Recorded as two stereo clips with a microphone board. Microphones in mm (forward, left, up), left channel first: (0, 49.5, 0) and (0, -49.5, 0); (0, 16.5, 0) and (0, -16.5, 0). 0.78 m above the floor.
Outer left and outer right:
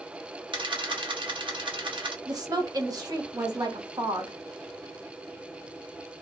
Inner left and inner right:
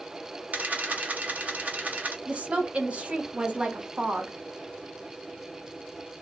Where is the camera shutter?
55° right (ahead or behind), 0.9 m.